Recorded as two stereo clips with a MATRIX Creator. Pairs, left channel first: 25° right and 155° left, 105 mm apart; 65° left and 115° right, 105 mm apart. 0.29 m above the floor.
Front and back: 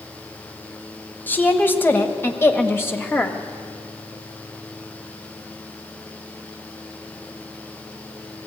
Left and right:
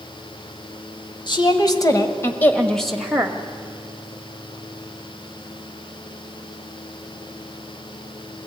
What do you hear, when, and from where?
1.3 s a woman speaking: 45° left, 1.8 m; by 3.4 s 65° right, 1.3 m